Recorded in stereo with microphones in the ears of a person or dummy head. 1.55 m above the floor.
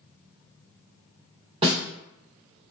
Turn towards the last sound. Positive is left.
turn(degrees=-30)  # may be behind; listen again after turning